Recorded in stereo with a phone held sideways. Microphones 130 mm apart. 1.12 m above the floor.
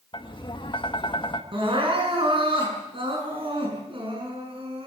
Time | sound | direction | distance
0.1 | tapping | 40° left (ahead or behind) | 2.0 m
1.5 | crying | 40° right (ahead or behind) | 7 m